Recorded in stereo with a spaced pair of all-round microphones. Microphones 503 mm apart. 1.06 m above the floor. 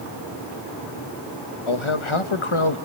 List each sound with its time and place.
1.7 s a man speaking: 70° left (ahead or behind), 1.1 m